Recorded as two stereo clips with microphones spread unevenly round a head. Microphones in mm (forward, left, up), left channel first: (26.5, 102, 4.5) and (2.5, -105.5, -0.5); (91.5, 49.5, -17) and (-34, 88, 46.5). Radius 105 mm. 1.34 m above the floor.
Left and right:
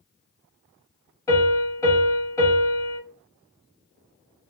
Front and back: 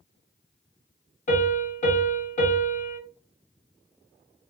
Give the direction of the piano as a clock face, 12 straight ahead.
11 o'clock.